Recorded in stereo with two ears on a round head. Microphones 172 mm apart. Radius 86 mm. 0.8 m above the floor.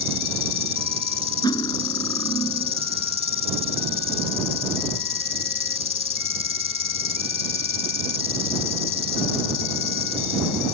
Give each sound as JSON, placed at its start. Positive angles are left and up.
{"t": 0.0, "sound": "an insect", "side_deg": 75}
{"t": 1.4, "sound": "cutlery clinking", "side_deg": 20}